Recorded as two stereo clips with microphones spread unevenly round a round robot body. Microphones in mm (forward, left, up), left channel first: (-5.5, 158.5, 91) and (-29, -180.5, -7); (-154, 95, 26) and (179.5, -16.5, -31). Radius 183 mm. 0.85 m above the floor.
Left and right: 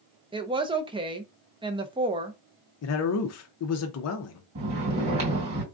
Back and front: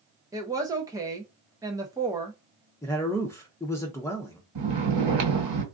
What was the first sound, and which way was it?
A woman speaking, 75° right.